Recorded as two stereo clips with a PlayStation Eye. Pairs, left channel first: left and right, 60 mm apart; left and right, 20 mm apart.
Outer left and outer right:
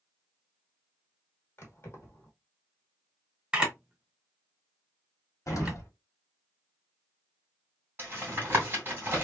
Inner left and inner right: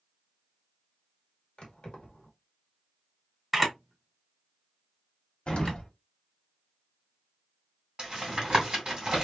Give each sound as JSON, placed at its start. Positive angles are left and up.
{"t": 1.6, "sound": "keys jangling", "side_deg": 50, "distance_m": 1.1}
{"t": 3.5, "sound": "a camera shutter", "side_deg": -15, "distance_m": 1.2}
{"t": 5.5, "sound": "an explosion", "side_deg": 60, "distance_m": 1.1}
{"t": 8.0, "sound": "tapping", "side_deg": -35, "distance_m": 1.9}